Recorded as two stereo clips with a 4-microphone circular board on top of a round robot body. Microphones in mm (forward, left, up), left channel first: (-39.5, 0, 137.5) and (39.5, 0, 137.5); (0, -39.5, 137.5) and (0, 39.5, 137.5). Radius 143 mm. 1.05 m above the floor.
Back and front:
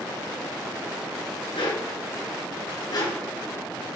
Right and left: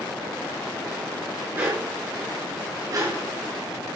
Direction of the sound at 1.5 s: 160° left.